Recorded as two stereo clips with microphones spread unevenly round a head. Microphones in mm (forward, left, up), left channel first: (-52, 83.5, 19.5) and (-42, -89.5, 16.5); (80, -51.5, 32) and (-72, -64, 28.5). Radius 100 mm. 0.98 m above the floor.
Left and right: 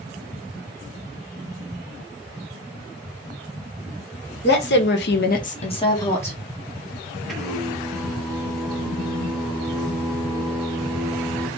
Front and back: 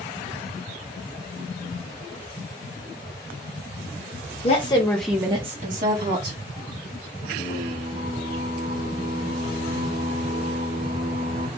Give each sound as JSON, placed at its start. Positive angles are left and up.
{"t": 4.4, "sound": "a woman speaking", "azimuth_deg": 60, "distance_m": 1.0}
{"t": 7.3, "sound": "singing", "azimuth_deg": -175, "distance_m": 1.4}